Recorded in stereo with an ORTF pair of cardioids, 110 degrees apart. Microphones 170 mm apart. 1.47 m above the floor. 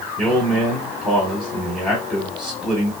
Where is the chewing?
No chewing in this recording.